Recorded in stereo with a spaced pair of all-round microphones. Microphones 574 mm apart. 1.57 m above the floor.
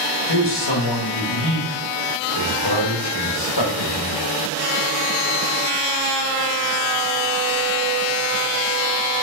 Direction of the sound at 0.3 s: 45° left (ahead or behind).